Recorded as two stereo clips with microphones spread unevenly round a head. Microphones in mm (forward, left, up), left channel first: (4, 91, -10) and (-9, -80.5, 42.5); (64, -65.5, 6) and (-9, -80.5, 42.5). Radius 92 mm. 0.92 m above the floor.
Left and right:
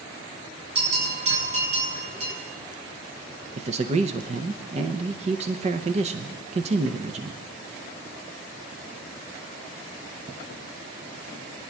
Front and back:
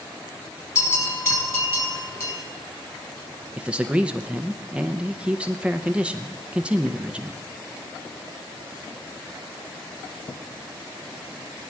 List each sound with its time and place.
0.8 s a bell: 40° right, 6 m
3.6 s a man speaking: 50° right, 0.6 m